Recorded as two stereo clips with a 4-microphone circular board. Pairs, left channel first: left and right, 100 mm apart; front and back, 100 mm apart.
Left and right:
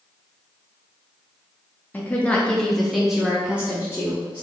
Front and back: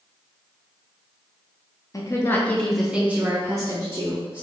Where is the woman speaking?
25° left, 0.7 m; by 4.5 s 155° right, 1.1 m.